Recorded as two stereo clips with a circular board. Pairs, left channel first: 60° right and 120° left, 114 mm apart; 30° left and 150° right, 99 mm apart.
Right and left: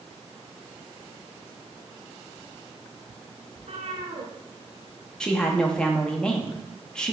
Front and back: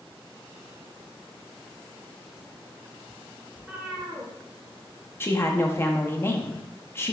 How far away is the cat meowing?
About 1.0 m.